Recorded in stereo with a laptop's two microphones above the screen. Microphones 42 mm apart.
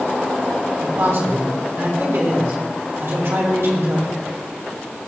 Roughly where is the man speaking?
Right.